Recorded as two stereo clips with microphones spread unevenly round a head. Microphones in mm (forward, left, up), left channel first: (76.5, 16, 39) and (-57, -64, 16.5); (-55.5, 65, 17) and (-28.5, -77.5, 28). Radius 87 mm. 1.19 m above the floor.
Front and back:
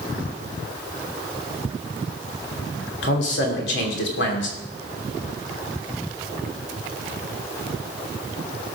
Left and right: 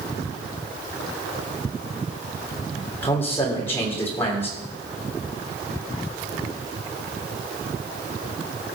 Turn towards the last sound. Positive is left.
turn(degrees=20)